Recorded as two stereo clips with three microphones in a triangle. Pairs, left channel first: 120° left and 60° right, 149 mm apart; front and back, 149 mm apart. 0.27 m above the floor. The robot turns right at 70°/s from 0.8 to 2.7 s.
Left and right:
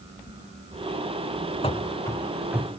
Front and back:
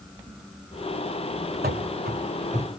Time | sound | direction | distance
1.6 | running footsteps | 175° left | 1.2 m